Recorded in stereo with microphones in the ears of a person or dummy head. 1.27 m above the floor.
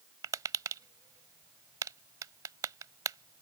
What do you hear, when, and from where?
0.2 s tapping: 20° right (ahead or behind)